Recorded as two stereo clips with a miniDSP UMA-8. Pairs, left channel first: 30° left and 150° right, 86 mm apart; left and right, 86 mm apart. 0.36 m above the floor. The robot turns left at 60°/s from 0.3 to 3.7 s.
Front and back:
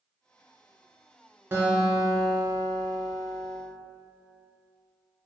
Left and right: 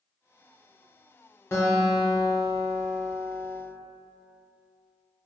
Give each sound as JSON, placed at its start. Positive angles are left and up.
{"t": 1.5, "sound": "a guitar", "azimuth_deg": 150, "distance_m": 0.7}